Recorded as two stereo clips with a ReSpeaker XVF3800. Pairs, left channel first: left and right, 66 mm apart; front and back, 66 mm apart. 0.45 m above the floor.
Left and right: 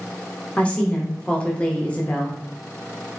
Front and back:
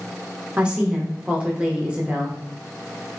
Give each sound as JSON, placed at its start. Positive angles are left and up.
{"t": 0.6, "sound": "a woman speaking", "azimuth_deg": 130, "distance_m": 0.7}